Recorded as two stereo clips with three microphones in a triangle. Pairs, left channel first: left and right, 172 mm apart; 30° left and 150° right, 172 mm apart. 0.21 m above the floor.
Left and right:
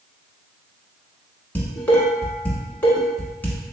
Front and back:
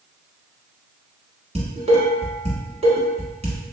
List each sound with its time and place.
1.6 s dishes clattering: 170° left, 1.2 m